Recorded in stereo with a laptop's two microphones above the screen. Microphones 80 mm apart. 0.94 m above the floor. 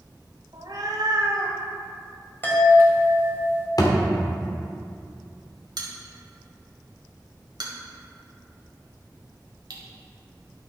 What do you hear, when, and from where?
0.5 s a cat meowing: 65° right (ahead or behind), 1.7 m; by 1.6 s 70° right (ahead or behind), 1.5 m
2.4 s a chime: 30° left (ahead or behind), 1.9 m
3.8 s a thud: 55° left (ahead or behind), 1.2 m
5.8 s a bell: 75° right (ahead or behind), 1.5 m